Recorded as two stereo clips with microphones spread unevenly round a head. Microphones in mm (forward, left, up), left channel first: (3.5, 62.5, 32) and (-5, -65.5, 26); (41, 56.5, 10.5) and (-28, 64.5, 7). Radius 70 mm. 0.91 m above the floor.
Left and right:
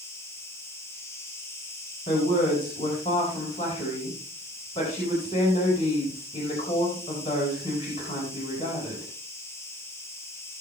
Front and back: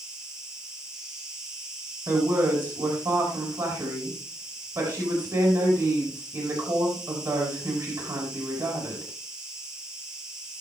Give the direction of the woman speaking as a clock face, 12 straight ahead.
7 o'clock.